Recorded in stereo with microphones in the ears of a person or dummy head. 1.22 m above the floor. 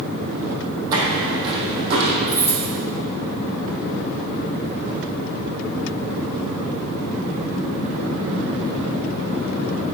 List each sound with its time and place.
0.9 s footsteps: 20° right (ahead or behind), 2.5 m; by 2.2 s 35° right (ahead or behind), 3 m
2.3 s keys jangling: 15° left (ahead or behind), 3 m